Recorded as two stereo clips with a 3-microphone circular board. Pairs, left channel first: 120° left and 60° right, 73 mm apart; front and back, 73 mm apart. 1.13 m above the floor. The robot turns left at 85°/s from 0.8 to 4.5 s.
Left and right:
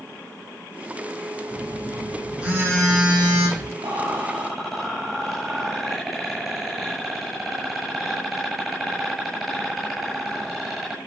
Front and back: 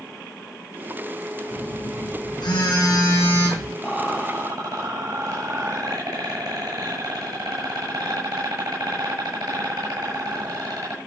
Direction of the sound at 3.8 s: 90° right.